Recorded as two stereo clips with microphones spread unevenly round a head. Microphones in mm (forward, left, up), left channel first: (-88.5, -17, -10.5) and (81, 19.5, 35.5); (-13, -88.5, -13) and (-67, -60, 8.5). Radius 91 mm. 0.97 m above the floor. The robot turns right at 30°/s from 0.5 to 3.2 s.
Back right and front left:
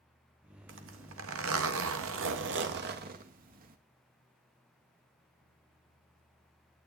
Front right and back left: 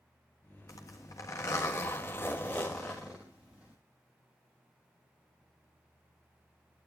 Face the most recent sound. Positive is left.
turn(degrees=60)